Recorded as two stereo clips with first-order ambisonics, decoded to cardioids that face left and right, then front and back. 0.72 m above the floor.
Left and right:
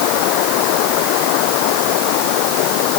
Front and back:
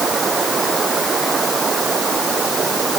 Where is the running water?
110° left.